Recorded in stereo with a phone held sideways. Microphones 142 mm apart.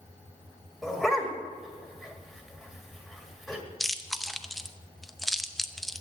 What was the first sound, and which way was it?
A dog barking, centre (ahead or behind).